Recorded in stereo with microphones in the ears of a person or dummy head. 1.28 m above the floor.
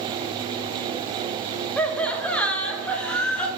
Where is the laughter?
5° left (ahead or behind), 0.9 m.